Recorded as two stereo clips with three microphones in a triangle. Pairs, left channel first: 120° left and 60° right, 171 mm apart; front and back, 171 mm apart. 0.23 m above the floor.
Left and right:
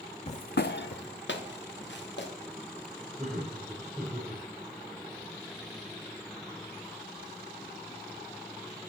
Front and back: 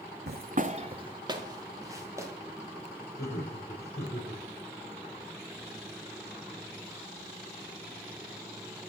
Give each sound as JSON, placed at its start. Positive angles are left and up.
{"t": 0.3, "sound": "footsteps", "azimuth_deg": 170, "distance_m": 0.6}
{"t": 3.2, "sound": "laughter", "azimuth_deg": 25, "distance_m": 5.5}